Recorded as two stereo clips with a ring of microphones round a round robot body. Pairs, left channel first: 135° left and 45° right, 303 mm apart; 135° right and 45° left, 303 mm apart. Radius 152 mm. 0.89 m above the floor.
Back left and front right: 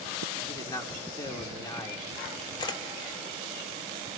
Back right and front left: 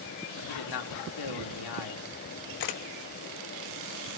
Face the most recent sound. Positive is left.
turn(degrees=-150)